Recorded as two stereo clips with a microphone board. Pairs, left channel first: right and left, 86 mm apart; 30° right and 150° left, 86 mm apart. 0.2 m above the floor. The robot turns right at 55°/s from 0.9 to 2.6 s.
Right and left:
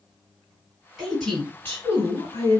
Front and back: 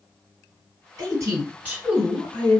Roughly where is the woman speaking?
Behind.